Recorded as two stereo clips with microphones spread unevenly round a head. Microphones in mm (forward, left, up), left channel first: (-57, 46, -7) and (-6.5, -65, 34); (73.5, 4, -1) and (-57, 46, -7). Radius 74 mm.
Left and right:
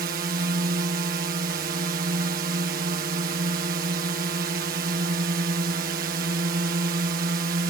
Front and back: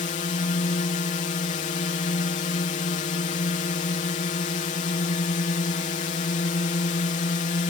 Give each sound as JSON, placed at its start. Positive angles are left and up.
{"t": 0.0, "sound": "a drone", "azimuth_deg": -55}